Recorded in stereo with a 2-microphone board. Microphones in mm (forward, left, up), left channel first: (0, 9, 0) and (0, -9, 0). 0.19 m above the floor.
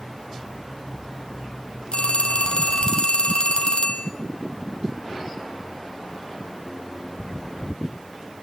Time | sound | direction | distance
1.9 | a phone ringing | 65° left (ahead or behind) | 3 m